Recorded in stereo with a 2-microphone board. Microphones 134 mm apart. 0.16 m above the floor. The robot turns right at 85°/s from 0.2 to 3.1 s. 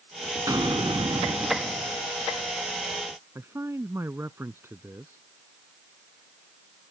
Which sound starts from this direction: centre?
A man speaking, at 3.4 s.